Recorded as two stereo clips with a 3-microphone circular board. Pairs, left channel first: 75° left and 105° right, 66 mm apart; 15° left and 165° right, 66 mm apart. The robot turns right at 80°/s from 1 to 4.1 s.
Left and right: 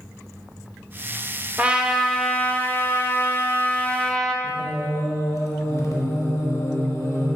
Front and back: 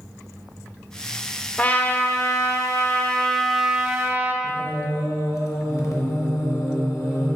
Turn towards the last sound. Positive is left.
turn(degrees=40)